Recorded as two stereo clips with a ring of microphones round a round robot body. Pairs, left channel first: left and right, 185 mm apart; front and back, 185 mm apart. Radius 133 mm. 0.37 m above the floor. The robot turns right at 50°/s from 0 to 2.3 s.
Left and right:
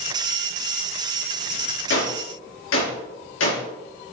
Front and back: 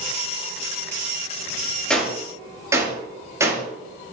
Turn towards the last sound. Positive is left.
turn(degrees=105)